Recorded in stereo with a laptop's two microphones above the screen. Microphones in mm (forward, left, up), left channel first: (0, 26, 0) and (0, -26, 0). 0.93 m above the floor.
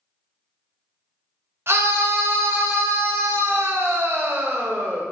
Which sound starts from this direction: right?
A scream, at 1.7 s.